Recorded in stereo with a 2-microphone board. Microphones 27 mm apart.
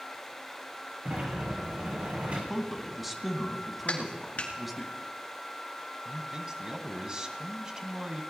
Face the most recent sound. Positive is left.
turn(degrees=-30)  # may be behind; listen again after turning